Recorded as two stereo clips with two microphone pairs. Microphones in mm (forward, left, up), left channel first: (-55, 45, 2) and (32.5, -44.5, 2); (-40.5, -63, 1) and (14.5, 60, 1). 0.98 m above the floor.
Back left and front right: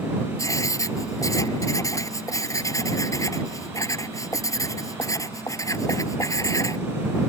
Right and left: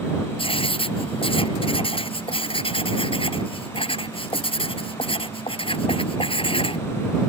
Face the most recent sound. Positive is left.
turn(degrees=-160)